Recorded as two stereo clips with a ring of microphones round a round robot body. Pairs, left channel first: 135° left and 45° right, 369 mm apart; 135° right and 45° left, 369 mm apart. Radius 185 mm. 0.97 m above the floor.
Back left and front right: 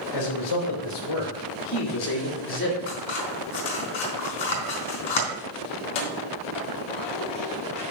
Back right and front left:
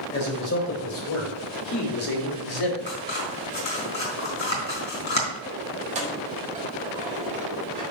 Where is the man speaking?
160° left, 3.5 m; by 2.8 s 160° right, 2 m.